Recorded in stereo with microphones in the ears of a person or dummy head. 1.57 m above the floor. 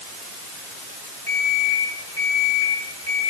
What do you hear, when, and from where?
1.3 s an alarm clock: 20° left (ahead or behind), 6.5 m